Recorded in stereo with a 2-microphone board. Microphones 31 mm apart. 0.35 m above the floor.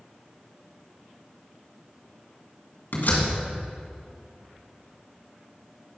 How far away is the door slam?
About 2.5 m.